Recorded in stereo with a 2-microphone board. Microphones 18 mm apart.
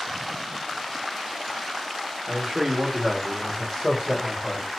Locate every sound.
2.3 s a man speaking: 45° right (ahead or behind), 1.0 m; by 4.7 s 45° left (ahead or behind), 1.9 m